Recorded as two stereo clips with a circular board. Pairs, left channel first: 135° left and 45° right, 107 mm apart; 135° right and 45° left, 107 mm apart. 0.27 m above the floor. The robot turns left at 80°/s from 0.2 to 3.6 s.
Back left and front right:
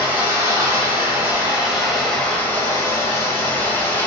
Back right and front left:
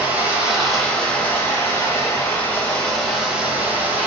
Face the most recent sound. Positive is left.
turn(degrees=90)